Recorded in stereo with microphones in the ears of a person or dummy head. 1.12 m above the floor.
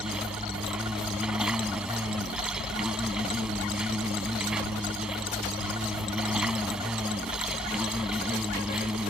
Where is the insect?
10° right (ahead or behind).